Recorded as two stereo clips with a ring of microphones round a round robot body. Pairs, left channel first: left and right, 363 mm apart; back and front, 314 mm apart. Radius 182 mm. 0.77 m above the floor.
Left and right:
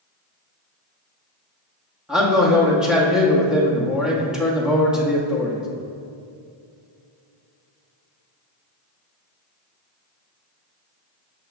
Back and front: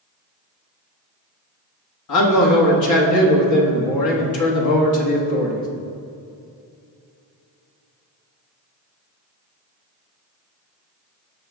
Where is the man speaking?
Straight behind, 1.3 m.